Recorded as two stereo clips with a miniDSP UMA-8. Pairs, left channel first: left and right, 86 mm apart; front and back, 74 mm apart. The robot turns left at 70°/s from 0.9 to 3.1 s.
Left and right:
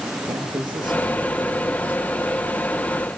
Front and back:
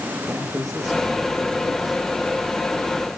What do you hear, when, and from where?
0.3 s a man speaking: 125° right, 7.5 m; by 2.0 s 155° left, 7.5 m